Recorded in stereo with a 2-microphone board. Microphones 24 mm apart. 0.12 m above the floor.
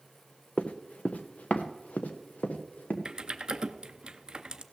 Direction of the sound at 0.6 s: 50° left (ahead or behind).